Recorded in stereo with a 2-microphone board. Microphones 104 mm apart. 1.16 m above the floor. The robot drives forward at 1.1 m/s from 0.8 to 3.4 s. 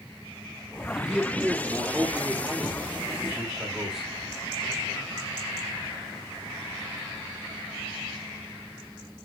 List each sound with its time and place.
0.9 s a man speaking: 10° right (ahead or behind), 1.5 m; by 4.1 s 5° right (ahead or behind), 4 m